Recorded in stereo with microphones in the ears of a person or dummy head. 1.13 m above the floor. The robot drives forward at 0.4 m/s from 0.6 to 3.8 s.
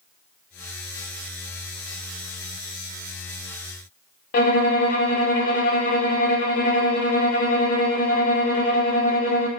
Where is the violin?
40° left (ahead or behind), 0.9 m.